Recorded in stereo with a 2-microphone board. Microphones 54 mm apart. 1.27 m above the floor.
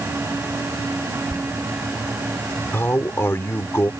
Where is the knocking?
I don't hear knocking.